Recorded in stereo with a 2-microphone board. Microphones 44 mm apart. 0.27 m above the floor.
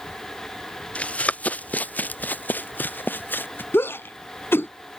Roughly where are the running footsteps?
Left.